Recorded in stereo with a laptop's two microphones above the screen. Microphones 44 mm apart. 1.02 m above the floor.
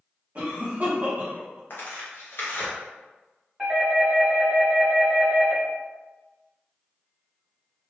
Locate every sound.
0.3 s a cough: 45° right (ahead or behind), 0.8 m
1.7 s tearing paper: 60° left (ahead or behind), 0.8 m
3.6 s a doorbell: 10° right (ahead or behind), 1.6 m